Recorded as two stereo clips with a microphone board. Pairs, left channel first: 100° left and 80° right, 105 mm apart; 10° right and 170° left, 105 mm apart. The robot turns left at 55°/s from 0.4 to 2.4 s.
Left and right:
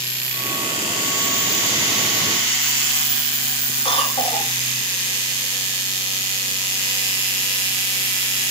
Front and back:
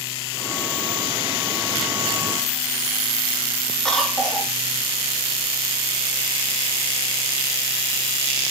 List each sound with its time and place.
3.9 s a cough: 75° left, 4 m